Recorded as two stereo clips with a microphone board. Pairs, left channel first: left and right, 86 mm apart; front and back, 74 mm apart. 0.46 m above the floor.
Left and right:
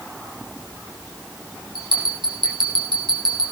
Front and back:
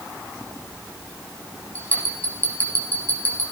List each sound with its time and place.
1.8 s a bell: 65° right, 7 m